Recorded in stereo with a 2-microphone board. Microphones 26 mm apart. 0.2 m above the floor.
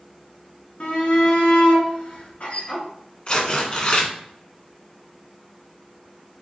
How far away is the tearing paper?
About 1.5 m.